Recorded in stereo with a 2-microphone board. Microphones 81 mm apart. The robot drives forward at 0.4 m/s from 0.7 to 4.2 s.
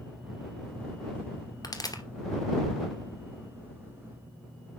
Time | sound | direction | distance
1.6 | a pop | 50° left (ahead or behind) | 2 m